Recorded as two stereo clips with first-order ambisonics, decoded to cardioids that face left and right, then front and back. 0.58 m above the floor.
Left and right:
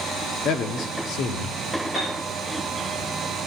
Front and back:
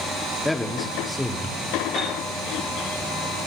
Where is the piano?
125° left, 9.5 m.